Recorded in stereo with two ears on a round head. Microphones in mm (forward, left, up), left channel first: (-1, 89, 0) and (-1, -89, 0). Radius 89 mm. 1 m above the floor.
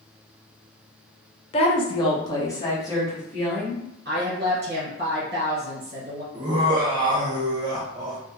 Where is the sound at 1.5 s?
30° left (ahead or behind), 0.5 m; by 3.8 s 10° left (ahead or behind), 1.5 m.